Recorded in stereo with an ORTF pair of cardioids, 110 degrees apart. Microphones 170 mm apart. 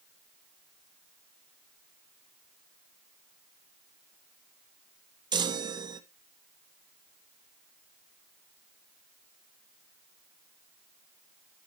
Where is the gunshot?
No gunshot in this recording.